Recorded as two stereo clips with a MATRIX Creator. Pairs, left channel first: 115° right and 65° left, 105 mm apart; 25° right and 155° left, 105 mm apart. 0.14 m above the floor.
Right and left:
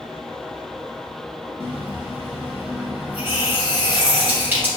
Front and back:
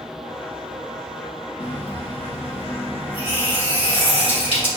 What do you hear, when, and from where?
1.6 s a running tap: straight ahead, 2.0 m